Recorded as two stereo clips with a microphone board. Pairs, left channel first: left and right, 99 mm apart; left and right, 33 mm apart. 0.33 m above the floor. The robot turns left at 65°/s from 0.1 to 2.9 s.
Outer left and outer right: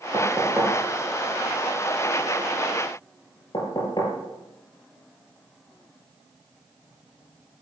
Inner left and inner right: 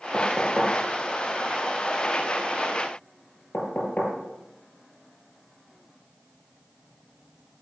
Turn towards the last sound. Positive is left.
turn(degrees=50)  # may be behind; listen again after turning